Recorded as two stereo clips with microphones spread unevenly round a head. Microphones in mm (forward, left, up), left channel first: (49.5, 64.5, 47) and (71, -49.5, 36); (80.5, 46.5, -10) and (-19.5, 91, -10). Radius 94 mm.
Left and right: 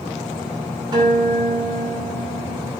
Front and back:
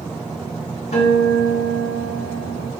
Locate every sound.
0.9 s a guitar: 30° right, 2 m